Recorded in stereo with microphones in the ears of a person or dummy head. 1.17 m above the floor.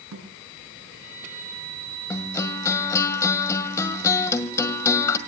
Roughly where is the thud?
Right.